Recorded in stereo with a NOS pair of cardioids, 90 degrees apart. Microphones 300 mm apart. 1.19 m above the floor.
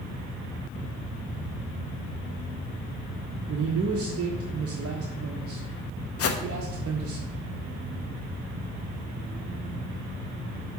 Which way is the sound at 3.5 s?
50° right.